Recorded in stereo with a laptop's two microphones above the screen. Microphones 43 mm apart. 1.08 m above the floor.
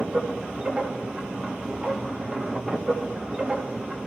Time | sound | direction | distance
0.0 | a machine running | 20° right (ahead or behind) | 2 m